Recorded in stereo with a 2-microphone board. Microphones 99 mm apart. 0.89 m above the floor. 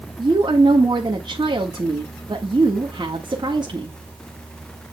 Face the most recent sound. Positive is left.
turn(degrees=-45)  # may be behind; listen again after turning